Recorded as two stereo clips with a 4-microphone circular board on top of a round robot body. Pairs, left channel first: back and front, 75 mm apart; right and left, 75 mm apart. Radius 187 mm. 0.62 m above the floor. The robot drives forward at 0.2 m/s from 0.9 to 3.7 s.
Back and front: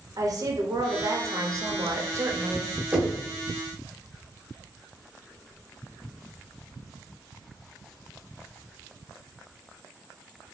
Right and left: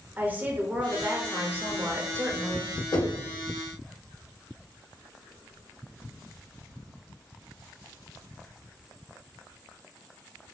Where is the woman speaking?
25° left, 1.0 m; by 2.8 s 45° left, 0.8 m.